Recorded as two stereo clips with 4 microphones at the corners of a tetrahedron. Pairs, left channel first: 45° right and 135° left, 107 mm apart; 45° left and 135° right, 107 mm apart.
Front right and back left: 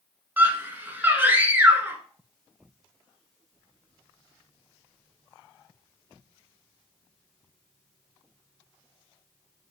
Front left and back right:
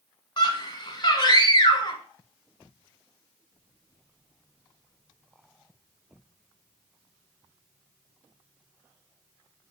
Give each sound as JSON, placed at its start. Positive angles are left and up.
{"t": 0.4, "sound": "a scream", "azimuth_deg": 70, "distance_m": 1.4}